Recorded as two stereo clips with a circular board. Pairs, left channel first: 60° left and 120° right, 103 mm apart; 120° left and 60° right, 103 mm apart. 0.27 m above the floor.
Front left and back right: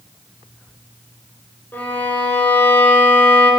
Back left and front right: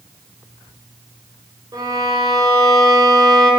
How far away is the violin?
About 2.5 m.